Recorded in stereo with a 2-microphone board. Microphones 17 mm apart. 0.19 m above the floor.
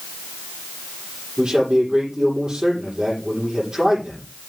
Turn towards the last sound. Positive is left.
turn(degrees=-65)  # may be behind; listen again after turning